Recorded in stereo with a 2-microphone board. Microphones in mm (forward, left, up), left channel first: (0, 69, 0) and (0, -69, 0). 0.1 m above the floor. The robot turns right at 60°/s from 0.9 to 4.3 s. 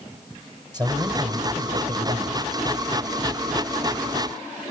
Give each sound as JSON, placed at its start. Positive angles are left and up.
{"t": 0.7, "sound": "a man speaking", "azimuth_deg": -145, "distance_m": 3.5}